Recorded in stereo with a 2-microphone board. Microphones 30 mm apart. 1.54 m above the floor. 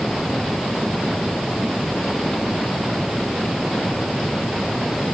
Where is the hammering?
I don't hear hammering.